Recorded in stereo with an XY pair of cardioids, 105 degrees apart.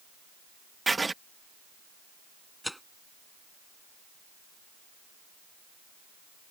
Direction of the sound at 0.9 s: 20° right.